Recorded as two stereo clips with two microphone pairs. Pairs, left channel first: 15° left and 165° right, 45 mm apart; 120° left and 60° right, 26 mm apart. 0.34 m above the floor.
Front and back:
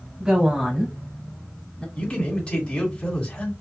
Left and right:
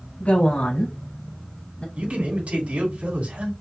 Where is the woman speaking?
130° left, 1.9 m; by 1.9 s 85° left, 1.8 m.